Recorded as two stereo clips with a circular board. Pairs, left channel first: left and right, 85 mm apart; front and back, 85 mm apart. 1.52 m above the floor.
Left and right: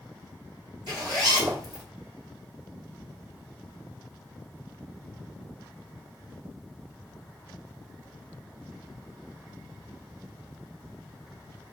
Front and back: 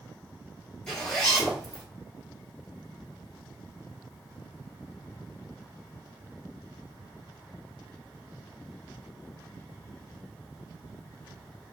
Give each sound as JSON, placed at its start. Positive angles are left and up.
{"t": 0.9, "sound": "a zipper", "azimuth_deg": -80, "distance_m": 1.8}